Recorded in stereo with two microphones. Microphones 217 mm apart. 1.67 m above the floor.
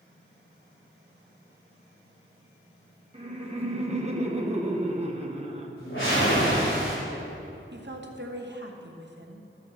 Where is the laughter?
30° right (ahead or behind), 1.0 m.